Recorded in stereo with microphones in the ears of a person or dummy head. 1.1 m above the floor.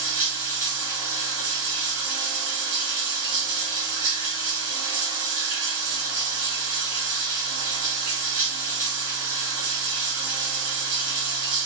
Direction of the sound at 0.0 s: 50° right (ahead or behind).